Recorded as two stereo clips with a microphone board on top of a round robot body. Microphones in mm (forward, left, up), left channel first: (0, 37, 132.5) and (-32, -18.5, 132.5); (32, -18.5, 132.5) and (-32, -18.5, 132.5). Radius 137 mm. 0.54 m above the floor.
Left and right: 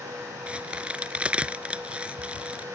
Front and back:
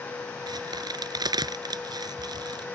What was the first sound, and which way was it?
A crack, 170° left.